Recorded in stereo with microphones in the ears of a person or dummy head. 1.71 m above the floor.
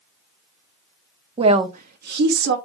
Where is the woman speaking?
30° right (ahead or behind), 0.7 m; by 2.6 s 75° right (ahead or behind), 1.2 m.